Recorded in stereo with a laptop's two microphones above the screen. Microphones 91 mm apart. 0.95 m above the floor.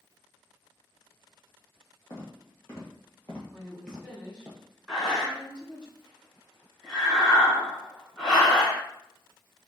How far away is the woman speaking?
About 2 m.